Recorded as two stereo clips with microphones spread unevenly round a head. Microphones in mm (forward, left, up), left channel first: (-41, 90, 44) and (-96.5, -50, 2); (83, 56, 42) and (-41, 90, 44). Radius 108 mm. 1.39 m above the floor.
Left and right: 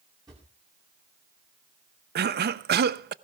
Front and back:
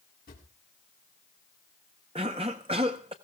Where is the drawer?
35° right, 2.5 m.